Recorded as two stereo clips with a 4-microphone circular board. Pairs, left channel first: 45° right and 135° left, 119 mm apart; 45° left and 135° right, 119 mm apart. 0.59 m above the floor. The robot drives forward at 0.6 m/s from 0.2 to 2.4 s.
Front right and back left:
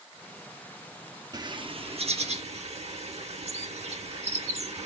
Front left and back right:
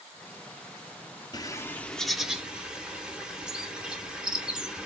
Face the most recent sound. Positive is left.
turn(degrees=145)